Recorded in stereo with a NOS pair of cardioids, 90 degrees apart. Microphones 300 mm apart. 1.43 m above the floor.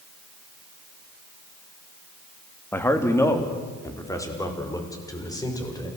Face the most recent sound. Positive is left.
turn(degrees=15)